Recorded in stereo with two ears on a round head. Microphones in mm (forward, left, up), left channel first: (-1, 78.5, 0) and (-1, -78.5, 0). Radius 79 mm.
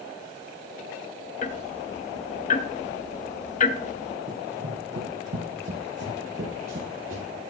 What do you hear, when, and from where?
1.4 s ticking: 45° left (ahead or behind), 0.6 m
4.3 s running footsteps: 50° right (ahead or behind), 2.5 m